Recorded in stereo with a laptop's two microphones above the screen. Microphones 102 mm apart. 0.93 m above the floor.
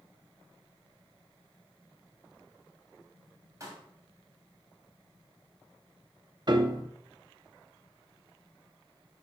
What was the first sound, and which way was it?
A pop, 35° right (ahead or behind).